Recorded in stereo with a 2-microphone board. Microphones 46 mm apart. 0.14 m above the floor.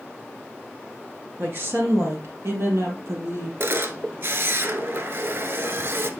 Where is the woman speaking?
50° right (ahead or behind), 2 m; by 3.5 s 75° right (ahead or behind), 4.5 m.